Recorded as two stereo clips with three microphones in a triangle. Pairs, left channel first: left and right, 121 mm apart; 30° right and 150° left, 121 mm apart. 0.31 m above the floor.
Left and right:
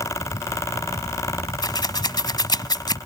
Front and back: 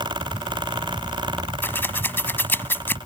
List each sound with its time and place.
1.6 s scissors: 40° left